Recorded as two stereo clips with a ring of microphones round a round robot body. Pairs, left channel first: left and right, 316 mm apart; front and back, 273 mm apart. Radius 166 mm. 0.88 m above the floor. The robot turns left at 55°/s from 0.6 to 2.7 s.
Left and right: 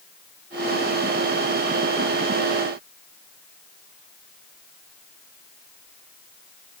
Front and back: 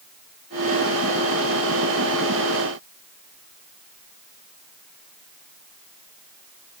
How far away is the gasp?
I don't hear a gasp.